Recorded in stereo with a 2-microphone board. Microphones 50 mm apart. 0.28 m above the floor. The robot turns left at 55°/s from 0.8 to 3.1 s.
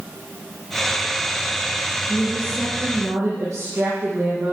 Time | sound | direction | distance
2.1 | a woman speaking | 30° right | 6 m